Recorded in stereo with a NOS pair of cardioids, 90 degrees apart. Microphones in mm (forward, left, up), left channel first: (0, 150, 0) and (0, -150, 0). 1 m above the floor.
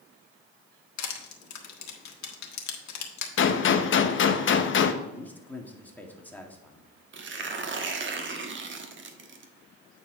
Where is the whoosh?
I don't hear a whoosh.